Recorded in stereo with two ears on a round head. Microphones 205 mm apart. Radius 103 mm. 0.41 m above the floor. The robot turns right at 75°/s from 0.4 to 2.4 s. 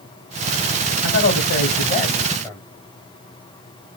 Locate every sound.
1.0 s a man speaking: 60° left, 2.5 m; by 2.6 s 165° left, 2.5 m